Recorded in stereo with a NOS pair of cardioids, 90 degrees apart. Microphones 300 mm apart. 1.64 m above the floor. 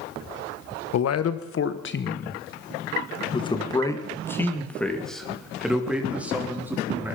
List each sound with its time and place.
0.9 s a man speaking: 60° left, 1.5 m; by 7.2 s 10° right, 4 m